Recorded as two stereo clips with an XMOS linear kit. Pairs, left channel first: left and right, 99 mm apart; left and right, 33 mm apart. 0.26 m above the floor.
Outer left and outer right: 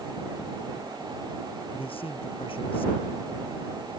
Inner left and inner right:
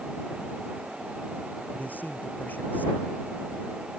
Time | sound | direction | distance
1.7 | a man speaking | 75° left (ahead or behind) | ?